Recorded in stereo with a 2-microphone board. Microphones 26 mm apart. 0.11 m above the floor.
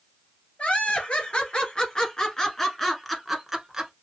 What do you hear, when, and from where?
0.6 s laughter: 50° left (ahead or behind), 1.9 m; by 3.9 s 15° right (ahead or behind), 1.3 m